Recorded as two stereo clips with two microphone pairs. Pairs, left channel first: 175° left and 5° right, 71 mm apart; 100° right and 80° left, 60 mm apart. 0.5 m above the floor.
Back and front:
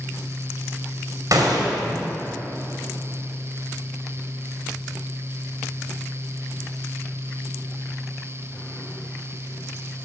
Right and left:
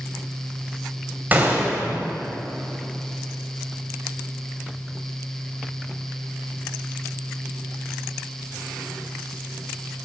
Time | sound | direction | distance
1.3 | a gunshot | 20° left | 1.9 m